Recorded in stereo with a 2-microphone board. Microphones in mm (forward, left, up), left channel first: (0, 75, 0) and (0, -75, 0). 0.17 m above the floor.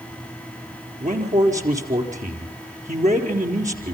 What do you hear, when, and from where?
1.0 s a man speaking: 55° right (ahead or behind), 4 m